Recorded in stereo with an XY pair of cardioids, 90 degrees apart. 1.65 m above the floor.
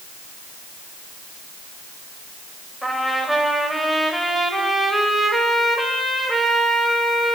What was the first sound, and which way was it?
A trumpet, 5° right.